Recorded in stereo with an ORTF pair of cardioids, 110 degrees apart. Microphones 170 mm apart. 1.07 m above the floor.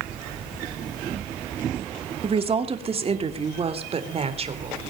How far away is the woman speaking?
About 2 m.